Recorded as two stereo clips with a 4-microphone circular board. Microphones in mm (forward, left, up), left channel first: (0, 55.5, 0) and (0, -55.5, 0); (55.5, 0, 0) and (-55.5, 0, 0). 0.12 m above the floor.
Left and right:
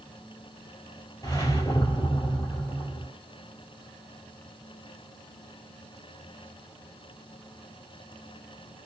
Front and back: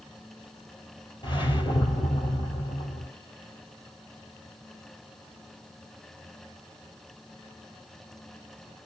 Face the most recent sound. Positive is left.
turn(degrees=35)